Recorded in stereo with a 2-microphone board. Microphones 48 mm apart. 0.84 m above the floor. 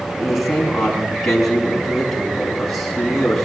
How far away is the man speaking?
About 6 m.